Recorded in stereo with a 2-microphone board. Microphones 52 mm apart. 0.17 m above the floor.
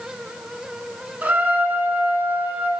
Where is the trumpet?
35° right (ahead or behind), 1.0 m.